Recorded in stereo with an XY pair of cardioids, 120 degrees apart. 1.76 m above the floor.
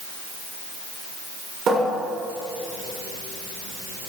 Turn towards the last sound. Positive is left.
turn(degrees=-55)